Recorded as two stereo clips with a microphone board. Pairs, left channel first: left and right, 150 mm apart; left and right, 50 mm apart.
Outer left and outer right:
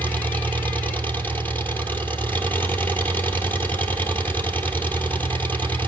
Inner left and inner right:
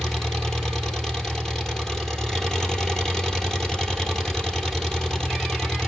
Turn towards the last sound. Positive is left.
turn(degrees=10)  # may be behind; listen again after turning